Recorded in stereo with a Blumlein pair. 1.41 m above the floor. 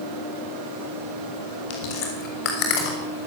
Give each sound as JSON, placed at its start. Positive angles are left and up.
{"t": 1.7, "sound": "chewing", "azimuth_deg": 45, "distance_m": 6.5}